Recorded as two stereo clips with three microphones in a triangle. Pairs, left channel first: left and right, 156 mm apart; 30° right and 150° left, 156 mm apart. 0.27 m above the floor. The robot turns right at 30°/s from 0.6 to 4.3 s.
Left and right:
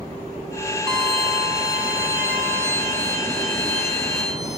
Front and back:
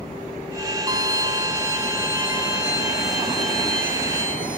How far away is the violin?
About 1.6 m.